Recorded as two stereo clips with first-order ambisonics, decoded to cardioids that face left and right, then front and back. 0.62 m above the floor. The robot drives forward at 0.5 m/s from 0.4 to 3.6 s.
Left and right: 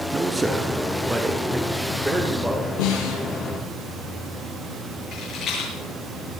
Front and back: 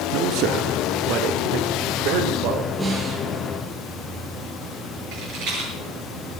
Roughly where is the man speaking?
Behind.